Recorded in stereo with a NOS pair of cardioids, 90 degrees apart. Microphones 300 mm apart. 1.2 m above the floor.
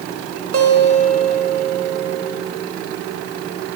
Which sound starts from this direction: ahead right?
A guitar, at 0.5 s.